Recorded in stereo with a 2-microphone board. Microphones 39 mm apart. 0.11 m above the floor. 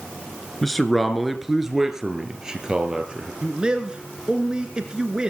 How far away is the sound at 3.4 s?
About 1.7 m.